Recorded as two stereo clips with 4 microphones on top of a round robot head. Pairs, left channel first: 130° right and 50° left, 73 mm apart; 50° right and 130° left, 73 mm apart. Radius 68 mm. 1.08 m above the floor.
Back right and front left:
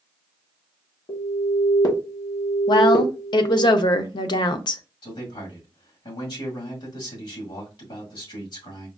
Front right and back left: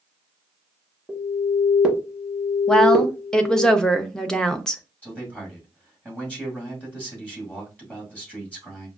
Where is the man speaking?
120° right, 2 m.